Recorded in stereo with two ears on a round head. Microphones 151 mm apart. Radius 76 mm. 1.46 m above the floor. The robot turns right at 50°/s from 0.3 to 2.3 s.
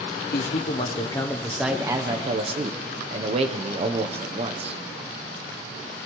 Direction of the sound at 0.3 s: 120° left.